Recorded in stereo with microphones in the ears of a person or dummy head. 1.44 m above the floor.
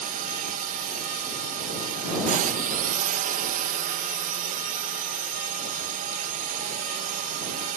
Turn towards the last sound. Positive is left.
turn(degrees=-40)  # may be behind; listen again after turning